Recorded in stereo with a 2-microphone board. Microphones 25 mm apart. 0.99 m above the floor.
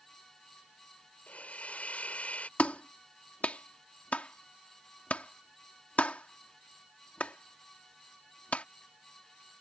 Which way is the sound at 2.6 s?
70° left (ahead or behind).